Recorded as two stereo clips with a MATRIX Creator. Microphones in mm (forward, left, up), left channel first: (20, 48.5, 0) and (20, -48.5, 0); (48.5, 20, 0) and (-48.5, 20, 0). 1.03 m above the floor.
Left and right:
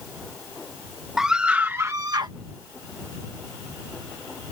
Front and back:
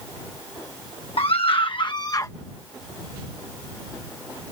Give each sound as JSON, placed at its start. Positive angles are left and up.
{"t": 1.2, "sound": "a scream", "azimuth_deg": -5}